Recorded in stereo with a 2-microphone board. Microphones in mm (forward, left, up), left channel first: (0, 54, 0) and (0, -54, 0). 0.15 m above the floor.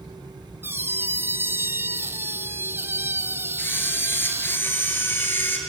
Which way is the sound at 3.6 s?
20° left (ahead or behind).